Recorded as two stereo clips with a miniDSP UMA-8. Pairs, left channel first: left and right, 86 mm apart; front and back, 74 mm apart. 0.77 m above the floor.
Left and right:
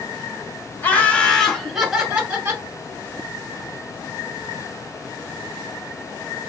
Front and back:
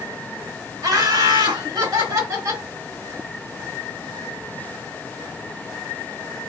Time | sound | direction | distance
0.8 | laughter | 155° left | 1.9 m